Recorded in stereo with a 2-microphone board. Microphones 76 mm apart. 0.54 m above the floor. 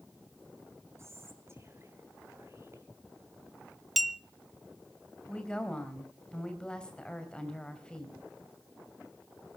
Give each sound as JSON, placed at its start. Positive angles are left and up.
{"t": 1.0, "sound": "whispering", "side_deg": -35, "distance_m": 2.5}
{"t": 4.0, "sound": "a clink", "side_deg": 0, "distance_m": 0.7}
{"t": 5.3, "sound": "a woman speaking", "side_deg": 10, "distance_m": 3.0}